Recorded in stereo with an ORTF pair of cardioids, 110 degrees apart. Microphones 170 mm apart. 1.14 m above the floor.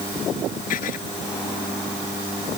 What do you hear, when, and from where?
0.7 s writing: 60° left